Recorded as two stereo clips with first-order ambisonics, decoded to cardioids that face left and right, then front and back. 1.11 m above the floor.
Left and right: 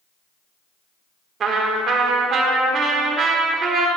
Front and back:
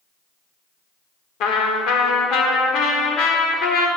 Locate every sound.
1.4 s a trumpet: 30° right, 1.3 m